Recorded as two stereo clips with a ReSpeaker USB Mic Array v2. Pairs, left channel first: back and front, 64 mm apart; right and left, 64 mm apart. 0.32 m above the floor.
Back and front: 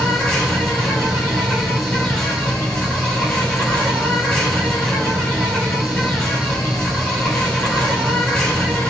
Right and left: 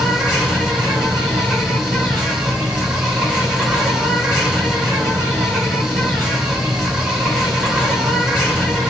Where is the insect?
135° left, 1.8 m.